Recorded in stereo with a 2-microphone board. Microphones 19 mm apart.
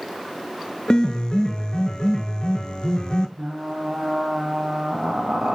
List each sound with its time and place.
0.9 s a piano: 50° left (ahead or behind), 0.6 m
3.4 s frying: 60° right (ahead or behind), 0.9 m